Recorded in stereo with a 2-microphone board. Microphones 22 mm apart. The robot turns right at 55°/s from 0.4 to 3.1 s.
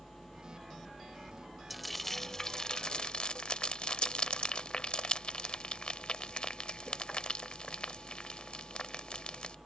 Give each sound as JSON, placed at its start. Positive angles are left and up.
{"t": 1.7, "sound": "frying", "side_deg": 0}